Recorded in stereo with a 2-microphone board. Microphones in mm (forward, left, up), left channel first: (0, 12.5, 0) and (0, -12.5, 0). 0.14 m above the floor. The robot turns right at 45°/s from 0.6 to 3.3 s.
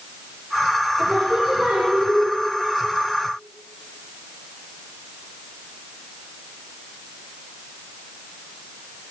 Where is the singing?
105° right, 4.5 m; by 2.3 s 45° right, 4.5 m.